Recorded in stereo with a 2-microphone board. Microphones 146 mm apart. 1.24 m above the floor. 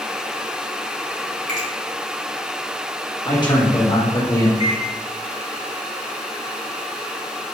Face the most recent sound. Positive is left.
turn(degrees=45)  # may be behind; listen again after turning